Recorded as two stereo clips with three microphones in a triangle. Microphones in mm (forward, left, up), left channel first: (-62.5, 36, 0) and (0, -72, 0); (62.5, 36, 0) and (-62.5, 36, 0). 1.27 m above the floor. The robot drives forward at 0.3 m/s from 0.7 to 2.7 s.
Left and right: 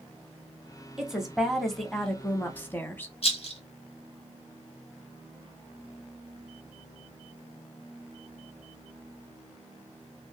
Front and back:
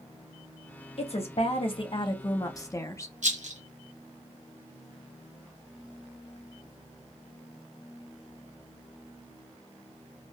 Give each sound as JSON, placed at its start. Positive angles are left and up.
{"t": 1.0, "sound": "a woman speaking", "azimuth_deg": 25, "distance_m": 0.9}
{"t": 3.2, "sound": "a rattle", "azimuth_deg": 160, "distance_m": 0.7}